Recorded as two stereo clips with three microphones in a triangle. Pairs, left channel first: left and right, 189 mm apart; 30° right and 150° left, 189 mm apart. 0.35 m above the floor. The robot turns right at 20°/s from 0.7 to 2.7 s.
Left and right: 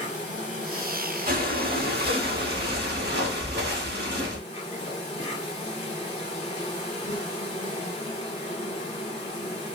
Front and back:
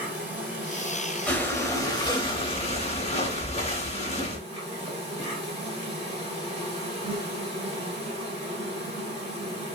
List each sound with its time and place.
0.0 s an insect: 80° left, 1.8 m; by 9.8 s 120° left, 1.8 m
1.3 s breathing: 110° right, 0.8 m; by 4.4 s 80° right, 0.8 m